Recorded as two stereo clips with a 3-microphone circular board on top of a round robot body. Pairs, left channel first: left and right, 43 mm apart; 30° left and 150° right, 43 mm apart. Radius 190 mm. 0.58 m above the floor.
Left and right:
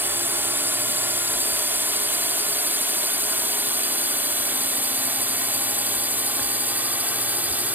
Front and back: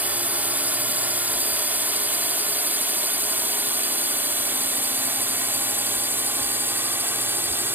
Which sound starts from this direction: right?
A drone, at 0.0 s.